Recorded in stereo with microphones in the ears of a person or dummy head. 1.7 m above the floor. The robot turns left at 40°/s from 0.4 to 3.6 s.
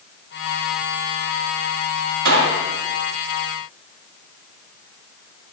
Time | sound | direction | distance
2.2 | a gunshot | 70° right (ahead or behind) | 1.0 m